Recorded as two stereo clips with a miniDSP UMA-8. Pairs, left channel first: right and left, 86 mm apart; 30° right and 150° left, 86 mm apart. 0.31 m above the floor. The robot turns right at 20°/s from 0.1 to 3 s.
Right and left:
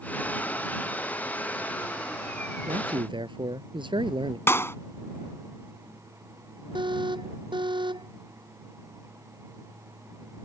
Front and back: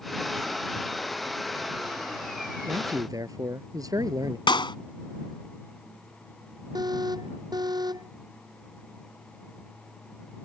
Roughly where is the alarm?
Behind left.